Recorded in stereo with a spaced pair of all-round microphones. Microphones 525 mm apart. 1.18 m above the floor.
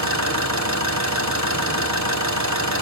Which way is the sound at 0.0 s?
30° right (ahead or behind).